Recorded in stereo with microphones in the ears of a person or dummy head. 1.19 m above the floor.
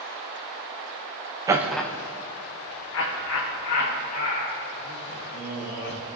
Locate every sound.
1.5 s laughter: 15° right (ahead or behind), 0.7 m; by 6.0 s 80° left, 3 m